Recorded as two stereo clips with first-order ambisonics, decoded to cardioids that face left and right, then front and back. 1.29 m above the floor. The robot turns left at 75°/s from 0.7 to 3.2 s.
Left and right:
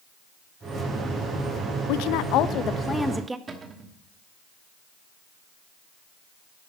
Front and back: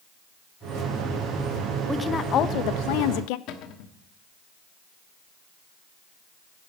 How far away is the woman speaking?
About 0.6 m.